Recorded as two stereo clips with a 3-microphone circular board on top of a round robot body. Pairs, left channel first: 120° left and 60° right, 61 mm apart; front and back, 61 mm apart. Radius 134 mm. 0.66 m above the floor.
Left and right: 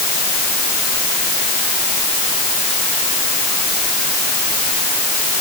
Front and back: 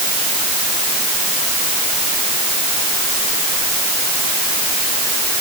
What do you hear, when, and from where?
Only background noise.